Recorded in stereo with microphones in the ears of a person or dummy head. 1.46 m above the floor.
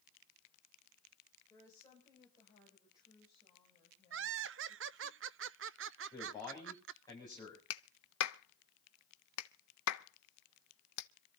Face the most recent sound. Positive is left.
turn(degrees=70)  # may be behind; listen again after turning